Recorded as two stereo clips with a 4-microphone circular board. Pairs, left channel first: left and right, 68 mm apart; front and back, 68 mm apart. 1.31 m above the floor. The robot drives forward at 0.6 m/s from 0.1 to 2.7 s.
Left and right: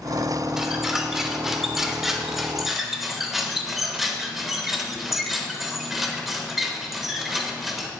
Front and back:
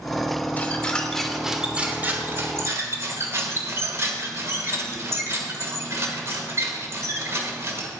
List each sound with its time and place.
0.6 s a squeak: 15° right, 1.0 m; by 7.9 s 175° right, 1.2 m